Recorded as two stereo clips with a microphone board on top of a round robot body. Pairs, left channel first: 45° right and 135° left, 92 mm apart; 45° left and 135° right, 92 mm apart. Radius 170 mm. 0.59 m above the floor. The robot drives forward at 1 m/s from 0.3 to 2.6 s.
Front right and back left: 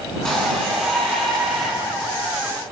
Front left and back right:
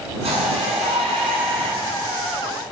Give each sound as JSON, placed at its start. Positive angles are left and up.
{"t": 0.2, "sound": "a shout", "azimuth_deg": -130, "distance_m": 9.0}